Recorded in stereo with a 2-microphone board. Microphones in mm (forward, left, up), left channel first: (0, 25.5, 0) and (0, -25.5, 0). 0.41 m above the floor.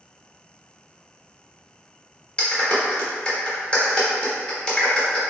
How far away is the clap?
About 1.0 m.